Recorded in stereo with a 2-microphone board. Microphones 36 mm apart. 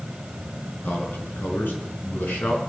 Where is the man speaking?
75° left (ahead or behind), 5.5 m.